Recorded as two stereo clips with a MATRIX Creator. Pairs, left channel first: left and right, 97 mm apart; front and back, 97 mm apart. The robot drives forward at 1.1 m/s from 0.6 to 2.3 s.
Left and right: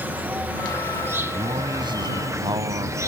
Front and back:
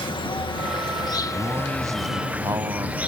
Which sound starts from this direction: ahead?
An insect, at 0.0 s.